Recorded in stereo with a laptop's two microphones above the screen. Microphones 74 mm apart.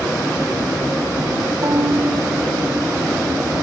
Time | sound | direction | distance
1.6 | a violin | 55° right (ahead or behind) | ?